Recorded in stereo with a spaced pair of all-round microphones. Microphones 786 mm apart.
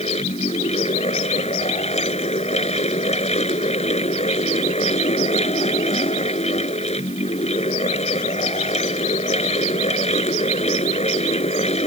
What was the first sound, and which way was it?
A fan, 10° left (ahead or behind).